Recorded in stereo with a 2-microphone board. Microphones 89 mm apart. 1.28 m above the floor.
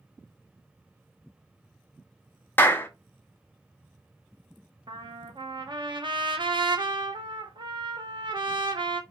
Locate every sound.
2.6 s a clap: 25° left (ahead or behind), 0.6 m
4.9 s a trumpet: 60° right (ahead or behind), 0.8 m